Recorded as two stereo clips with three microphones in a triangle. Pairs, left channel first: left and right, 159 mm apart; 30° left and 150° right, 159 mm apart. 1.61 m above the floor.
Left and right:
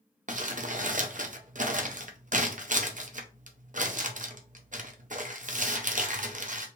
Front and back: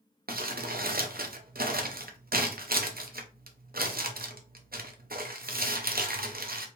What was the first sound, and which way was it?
Crumpling, 130° right.